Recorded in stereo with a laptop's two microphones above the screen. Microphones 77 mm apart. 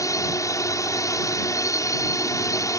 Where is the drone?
45° left (ahead or behind).